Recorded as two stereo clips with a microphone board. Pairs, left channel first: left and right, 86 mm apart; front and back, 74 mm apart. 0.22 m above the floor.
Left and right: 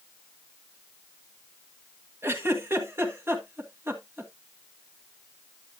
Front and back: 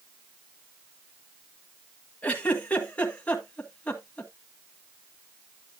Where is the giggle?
55° right, 1.6 m.